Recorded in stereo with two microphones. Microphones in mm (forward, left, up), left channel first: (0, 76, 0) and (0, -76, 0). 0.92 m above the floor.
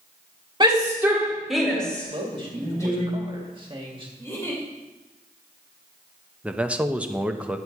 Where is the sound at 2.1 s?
35° right (ahead or behind), 2 m.